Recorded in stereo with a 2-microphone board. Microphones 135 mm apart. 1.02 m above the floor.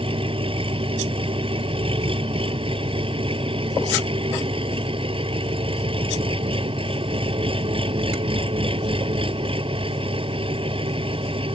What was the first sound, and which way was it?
An engine running, 45° right (ahead or behind).